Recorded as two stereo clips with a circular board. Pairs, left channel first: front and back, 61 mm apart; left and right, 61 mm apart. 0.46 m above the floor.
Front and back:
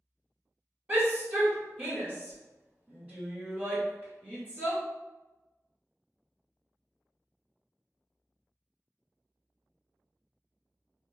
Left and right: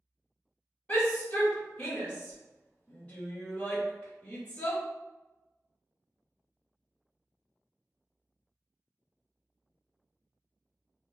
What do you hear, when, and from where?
0.9 s a shout: 145° left, 1.2 m